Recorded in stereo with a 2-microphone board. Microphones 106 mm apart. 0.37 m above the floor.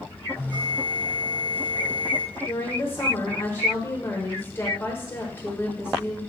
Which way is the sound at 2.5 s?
25° left (ahead or behind).